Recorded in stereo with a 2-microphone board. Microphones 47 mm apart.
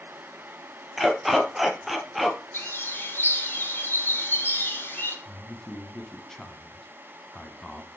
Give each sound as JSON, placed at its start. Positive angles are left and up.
{"t": 1.0, "sound": "a dog barking", "side_deg": 0, "distance_m": 1.5}
{"t": 2.5, "sound": "a bird", "side_deg": 45, "distance_m": 3.0}
{"t": 5.2, "sound": "a man speaking", "side_deg": 10, "distance_m": 1.4}